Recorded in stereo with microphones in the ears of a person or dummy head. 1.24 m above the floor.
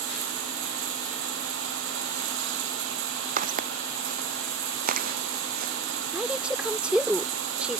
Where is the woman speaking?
Centre (ahead or behind).